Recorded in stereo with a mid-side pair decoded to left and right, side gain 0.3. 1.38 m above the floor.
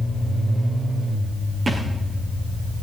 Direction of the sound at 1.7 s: 40° right.